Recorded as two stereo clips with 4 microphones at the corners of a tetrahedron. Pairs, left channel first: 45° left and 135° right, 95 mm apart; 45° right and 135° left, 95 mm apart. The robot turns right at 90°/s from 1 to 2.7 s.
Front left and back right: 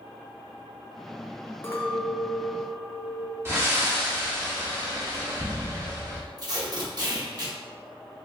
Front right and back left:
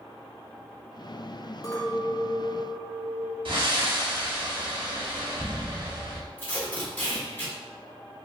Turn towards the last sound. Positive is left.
turn(degrees=-110)